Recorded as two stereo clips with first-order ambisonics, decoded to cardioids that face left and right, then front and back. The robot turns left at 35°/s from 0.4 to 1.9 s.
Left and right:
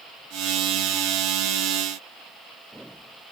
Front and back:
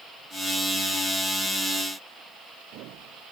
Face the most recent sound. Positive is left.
No sound to turn to.